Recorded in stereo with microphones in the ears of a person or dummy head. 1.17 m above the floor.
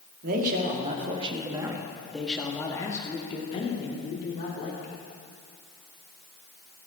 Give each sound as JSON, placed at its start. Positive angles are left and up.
{"t": 0.2, "sound": "a man speaking", "side_deg": -55, "distance_m": 2.0}